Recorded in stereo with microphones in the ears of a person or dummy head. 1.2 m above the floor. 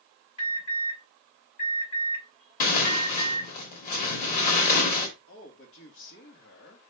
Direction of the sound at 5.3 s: 65° left (ahead or behind).